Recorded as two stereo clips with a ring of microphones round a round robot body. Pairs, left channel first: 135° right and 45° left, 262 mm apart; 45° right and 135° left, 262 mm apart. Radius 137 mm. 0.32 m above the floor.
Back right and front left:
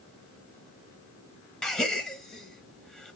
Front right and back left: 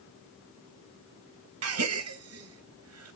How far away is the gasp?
About 0.8 m.